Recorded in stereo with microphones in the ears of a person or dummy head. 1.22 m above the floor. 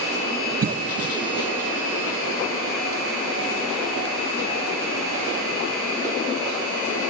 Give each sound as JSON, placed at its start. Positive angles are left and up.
{"t": 0.6, "sound": "a cough", "side_deg": -45, "distance_m": 0.6}